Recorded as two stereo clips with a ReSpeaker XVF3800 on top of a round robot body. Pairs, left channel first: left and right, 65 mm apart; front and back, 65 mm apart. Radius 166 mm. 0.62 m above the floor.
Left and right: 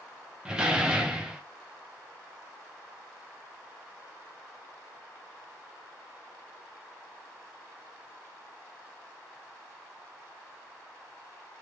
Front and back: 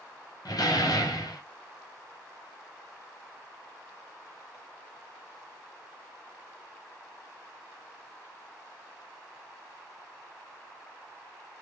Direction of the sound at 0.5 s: 10° right.